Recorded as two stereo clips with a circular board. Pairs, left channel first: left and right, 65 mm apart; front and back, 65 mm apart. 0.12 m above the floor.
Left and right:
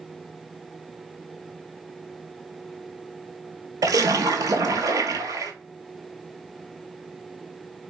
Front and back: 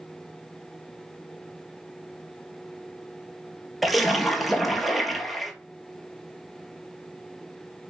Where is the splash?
90° right, 0.5 m.